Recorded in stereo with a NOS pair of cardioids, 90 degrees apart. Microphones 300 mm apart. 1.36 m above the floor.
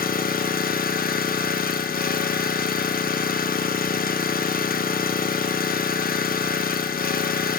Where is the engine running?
30° left, 0.9 m.